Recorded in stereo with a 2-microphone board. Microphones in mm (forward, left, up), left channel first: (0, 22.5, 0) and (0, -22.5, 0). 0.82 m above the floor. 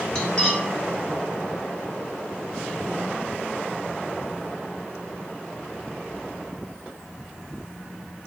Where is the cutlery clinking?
15° left (ahead or behind), 1.1 m.